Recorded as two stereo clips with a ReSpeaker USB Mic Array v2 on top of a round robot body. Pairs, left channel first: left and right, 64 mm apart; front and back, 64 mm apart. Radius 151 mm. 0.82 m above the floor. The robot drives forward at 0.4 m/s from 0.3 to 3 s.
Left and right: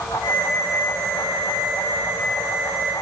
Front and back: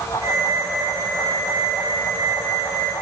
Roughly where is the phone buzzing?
No phone buzzing in this recording.